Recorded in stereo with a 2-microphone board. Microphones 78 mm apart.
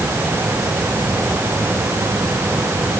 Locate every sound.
Only background noise.